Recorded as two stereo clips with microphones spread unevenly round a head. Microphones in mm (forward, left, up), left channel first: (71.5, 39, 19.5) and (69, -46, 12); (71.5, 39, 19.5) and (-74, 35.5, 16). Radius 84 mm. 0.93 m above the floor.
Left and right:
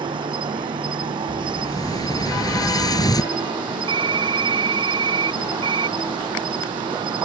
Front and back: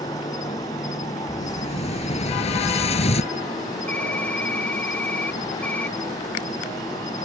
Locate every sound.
0.0 s an insect: 70° right
1.3 s an explosion: 45° left
3.9 s typing on a keyboard: 80° right